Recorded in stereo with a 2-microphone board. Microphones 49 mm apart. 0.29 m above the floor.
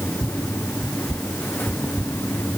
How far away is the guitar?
No guitar in this recording.